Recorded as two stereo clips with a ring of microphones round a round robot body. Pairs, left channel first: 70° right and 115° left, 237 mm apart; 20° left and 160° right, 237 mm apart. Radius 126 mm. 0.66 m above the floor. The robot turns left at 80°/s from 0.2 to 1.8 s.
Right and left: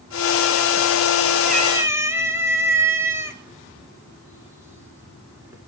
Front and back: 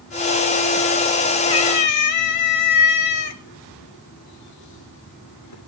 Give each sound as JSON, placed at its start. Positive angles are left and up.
{"t": 1.5, "sound": "a cat meowing", "azimuth_deg": 60, "distance_m": 1.6}